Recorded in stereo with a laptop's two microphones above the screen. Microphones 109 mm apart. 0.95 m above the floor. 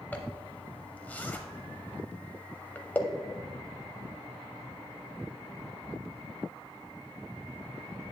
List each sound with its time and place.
0.1 s a zipper: 15° left (ahead or behind), 0.8 m